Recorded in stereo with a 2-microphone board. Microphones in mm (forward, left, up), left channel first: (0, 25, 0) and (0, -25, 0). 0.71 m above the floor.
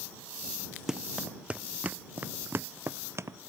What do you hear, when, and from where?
0.9 s running footsteps: 10° right (ahead or behind); by 3.4 s 65° right (ahead or behind)